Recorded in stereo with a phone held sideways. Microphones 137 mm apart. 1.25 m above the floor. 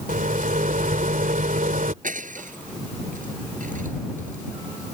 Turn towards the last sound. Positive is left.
turn(degrees=-70)  # may be behind; listen again after turning